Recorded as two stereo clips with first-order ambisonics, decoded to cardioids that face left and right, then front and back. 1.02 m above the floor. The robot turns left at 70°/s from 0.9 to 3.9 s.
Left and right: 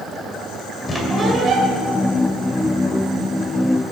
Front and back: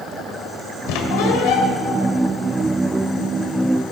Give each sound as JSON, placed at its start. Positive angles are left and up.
{"t": 0.9, "sound": "a squeak", "azimuth_deg": 10, "distance_m": 2.0}